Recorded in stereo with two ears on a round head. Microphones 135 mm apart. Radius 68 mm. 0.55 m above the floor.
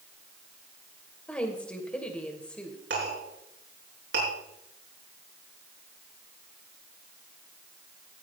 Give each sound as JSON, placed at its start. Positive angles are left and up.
{"t": 1.3, "sound": "a woman speaking", "side_deg": 10, "distance_m": 2.5}
{"t": 2.9, "sound": "a clink", "side_deg": -85, "distance_m": 6.5}